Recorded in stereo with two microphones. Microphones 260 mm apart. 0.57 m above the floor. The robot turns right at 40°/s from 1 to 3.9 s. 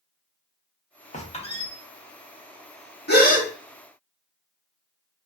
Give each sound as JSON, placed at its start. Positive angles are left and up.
{"t": 1.1, "sound": "a squeak", "side_deg": 30, "distance_m": 0.6}
{"t": 3.1, "sound": "a gasp", "side_deg": 40, "distance_m": 0.6}